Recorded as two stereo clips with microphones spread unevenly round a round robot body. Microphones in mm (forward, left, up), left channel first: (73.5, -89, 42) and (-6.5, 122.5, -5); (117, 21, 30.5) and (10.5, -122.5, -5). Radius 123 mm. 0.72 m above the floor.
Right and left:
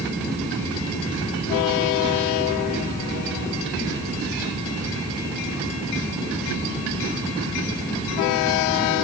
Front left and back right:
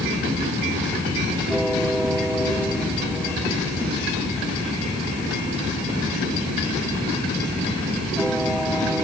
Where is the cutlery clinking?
No cutlery clinking in this recording.